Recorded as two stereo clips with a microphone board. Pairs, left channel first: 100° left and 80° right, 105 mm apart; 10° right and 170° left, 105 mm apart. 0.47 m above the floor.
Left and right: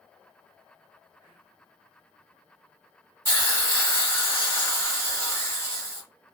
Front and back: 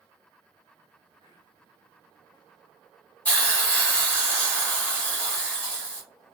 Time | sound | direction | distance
1.2 | whispering | straight ahead | 1.1 m
3.2 | a hiss | 55° left | 1.5 m